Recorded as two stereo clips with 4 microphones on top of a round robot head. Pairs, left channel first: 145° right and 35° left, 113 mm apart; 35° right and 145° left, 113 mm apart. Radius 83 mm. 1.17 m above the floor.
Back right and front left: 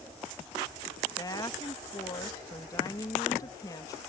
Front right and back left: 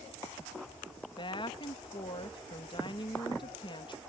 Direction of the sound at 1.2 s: 85° right.